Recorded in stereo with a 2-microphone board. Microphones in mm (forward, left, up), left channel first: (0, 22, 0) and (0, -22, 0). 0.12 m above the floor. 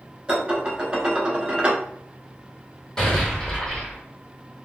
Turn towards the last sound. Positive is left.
turn(degrees=20)  # may be behind; listen again after turning